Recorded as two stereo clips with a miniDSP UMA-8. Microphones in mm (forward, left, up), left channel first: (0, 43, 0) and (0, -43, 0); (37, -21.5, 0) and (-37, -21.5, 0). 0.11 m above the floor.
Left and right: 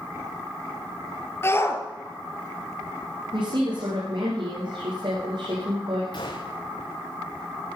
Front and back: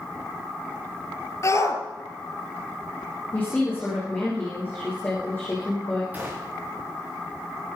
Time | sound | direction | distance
1.4 | a shout | 35° left | 3 m
3.3 | a woman speaking | 65° right | 6.5 m
6.1 | a gunshot | 115° left | 4.5 m